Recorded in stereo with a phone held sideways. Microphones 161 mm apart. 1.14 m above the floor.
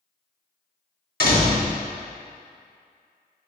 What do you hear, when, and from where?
1.2 s a door slam: 65° left (ahead or behind), 1.8 m